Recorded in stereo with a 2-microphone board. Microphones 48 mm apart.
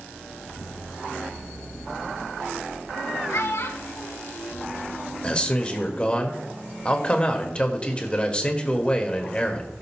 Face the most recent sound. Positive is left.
turn(degrees=25)  # may be behind; listen again after turning